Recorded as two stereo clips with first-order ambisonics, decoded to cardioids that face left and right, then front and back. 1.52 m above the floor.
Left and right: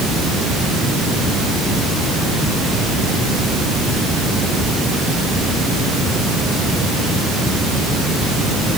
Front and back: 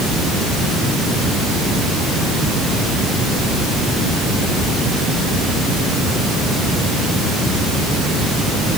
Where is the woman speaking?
I don't hear a woman speaking.